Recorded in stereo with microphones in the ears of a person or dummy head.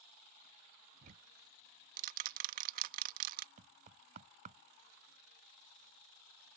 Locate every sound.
1.0 s ticking: 55° right (ahead or behind)
3.6 s knocking: 50° right (ahead or behind)